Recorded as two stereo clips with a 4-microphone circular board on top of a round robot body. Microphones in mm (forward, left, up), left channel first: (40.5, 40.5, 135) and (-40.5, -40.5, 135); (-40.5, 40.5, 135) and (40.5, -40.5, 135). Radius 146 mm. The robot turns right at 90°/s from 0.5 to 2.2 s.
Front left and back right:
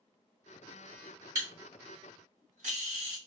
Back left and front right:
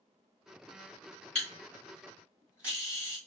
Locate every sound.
1.4 s a camera shutter: 160° left, 1.6 m; by 3.2 s 125° right, 1.6 m